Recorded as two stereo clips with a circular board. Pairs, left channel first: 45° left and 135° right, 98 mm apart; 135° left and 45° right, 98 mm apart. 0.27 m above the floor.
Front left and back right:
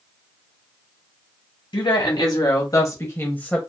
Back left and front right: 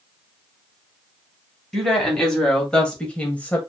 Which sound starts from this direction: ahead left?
A woman speaking, at 1.7 s.